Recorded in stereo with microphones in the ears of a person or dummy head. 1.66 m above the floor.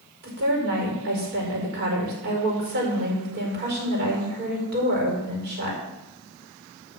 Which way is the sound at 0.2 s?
55° right (ahead or behind).